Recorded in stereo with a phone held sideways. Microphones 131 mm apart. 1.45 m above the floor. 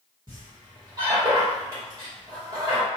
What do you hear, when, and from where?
0.3 s a squeak: 35° right (ahead or behind), 1.3 m